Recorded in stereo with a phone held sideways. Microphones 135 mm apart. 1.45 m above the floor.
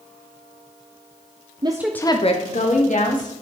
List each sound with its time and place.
1.6 s a woman speaking: 35° right (ahead or behind), 0.6 m; by 3.3 s 75° left (ahead or behind), 2.0 m